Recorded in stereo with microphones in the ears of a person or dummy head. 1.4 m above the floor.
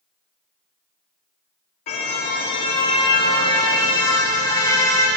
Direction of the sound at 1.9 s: 45° left (ahead or behind).